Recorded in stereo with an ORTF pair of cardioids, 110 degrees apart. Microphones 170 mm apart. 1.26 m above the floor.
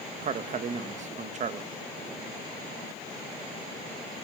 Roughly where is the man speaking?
Ahead right.